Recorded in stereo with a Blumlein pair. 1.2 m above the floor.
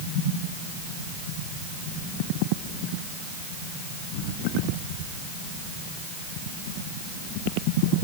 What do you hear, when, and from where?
Only background noise.